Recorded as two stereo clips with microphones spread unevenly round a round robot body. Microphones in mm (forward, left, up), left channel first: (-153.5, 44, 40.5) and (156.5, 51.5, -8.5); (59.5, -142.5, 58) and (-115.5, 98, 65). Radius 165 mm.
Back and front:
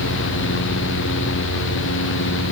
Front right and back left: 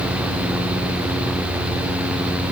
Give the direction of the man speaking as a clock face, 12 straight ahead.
I don't hear a man speaking.